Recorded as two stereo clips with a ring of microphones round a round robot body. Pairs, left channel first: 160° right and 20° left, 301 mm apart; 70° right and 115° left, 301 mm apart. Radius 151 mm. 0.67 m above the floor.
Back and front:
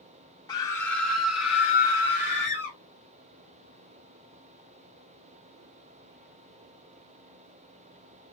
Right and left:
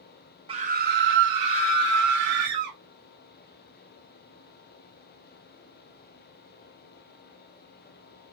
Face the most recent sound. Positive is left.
turn(degrees=100)